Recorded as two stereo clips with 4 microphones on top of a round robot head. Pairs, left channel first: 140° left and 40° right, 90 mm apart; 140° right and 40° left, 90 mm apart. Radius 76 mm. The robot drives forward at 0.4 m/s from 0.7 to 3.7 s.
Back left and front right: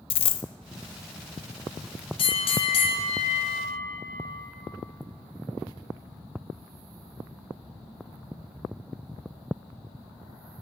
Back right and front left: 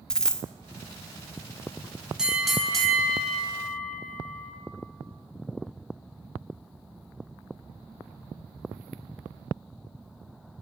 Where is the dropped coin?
140° left, 0.5 m.